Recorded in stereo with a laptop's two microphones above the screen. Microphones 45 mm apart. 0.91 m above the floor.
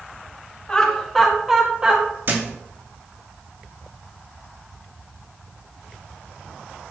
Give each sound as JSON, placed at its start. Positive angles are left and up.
{"t": 0.7, "sound": "laughter", "side_deg": 20, "distance_m": 2.0}
{"t": 2.3, "sound": "a thud", "side_deg": -45, "distance_m": 1.3}